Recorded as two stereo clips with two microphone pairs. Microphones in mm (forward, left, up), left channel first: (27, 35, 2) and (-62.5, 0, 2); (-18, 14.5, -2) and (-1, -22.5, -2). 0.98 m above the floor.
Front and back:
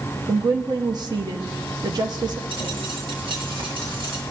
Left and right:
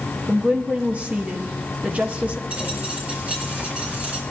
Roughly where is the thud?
No thud in this recording.